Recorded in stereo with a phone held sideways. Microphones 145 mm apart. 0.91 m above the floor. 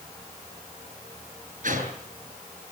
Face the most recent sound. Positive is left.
turn(degrees=-65)  # may be behind; listen again after turning